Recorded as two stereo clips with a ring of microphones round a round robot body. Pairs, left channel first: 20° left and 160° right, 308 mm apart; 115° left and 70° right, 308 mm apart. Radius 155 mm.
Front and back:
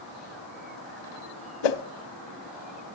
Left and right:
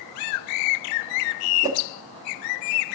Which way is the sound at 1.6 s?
10° left.